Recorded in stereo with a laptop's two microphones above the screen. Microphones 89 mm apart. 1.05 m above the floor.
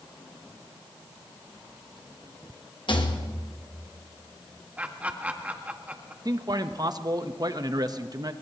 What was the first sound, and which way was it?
A rattle, 60° left (ahead or behind).